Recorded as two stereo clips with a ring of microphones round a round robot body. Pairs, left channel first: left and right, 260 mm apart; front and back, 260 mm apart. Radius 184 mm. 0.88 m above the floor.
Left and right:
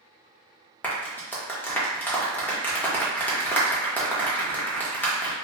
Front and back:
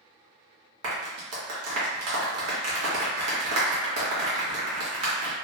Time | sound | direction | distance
0.8 | a clap | 175° left | 0.9 m